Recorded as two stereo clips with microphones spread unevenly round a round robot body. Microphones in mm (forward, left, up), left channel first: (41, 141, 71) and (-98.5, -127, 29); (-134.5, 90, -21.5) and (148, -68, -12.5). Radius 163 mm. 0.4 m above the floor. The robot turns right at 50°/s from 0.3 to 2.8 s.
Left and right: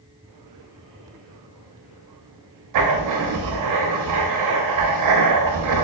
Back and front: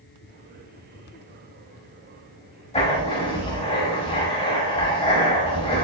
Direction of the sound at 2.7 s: 140° right.